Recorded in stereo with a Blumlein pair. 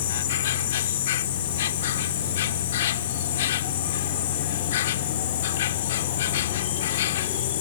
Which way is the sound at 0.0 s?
60° left.